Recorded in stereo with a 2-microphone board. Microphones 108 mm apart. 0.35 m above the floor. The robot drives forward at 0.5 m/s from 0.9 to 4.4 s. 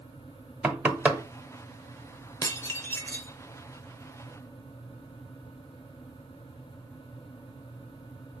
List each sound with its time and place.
0.6 s knocking: 15° right (ahead or behind), 0.8 m
2.4 s dishes clattering: 30° left (ahead or behind), 0.6 m; by 3.4 s 20° left (ahead or behind), 0.9 m